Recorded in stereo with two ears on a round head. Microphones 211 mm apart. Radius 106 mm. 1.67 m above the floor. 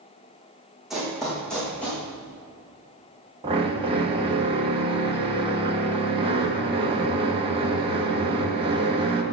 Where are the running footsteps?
Centre (ahead or behind), 4.5 m; by 2.0 s 5° left (ahead or behind), 5.5 m.